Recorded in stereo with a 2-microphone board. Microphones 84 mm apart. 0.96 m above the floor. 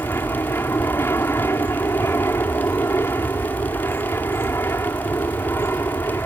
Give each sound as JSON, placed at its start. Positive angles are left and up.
{"t": 0.0, "sound": "an aircraft", "side_deg": 30}